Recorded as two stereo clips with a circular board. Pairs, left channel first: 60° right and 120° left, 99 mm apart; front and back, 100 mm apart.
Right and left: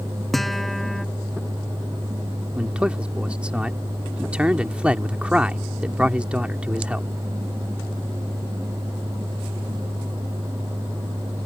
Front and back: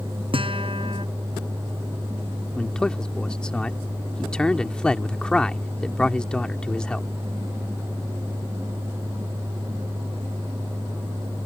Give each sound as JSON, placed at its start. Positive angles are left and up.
{"t": 0.3, "sound": "a guitar", "azimuth_deg": -150}
{"t": 2.6, "sound": "a man speaking", "azimuth_deg": 65}